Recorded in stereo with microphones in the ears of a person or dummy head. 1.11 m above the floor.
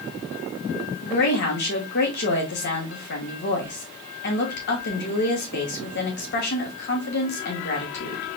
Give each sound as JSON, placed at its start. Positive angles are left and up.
{"t": 1.0, "sound": "a woman speaking", "side_deg": 50, "distance_m": 1.9}